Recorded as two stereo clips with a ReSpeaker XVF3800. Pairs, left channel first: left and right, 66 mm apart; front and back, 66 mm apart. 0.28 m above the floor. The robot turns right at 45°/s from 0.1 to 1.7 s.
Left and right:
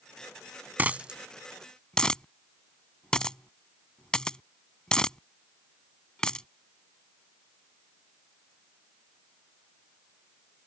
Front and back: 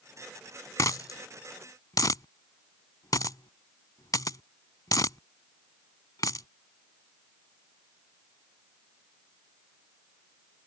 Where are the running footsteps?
I don't hear running footsteps.